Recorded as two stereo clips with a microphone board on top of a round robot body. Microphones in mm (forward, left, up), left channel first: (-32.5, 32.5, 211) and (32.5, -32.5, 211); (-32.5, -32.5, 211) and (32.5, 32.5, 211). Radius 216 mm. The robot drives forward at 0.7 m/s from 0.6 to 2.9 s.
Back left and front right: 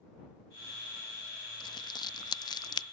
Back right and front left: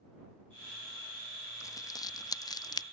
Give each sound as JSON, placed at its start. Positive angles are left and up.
{"t": 1.6, "sound": "crumpling", "azimuth_deg": 170}